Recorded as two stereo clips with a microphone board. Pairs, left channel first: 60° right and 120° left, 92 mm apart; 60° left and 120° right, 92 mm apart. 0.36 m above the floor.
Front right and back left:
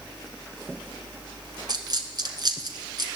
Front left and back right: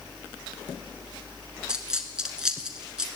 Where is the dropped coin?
160° left, 1.9 m.